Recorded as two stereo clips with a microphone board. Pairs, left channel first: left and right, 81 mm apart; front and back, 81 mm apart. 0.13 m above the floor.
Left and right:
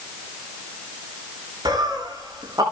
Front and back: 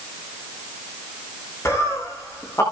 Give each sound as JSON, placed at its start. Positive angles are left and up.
{"t": 1.6, "sound": "laughter", "azimuth_deg": -55, "distance_m": 7.5}